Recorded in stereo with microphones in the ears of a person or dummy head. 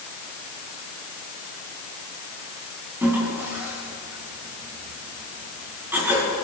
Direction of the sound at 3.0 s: 10° right (ahead or behind).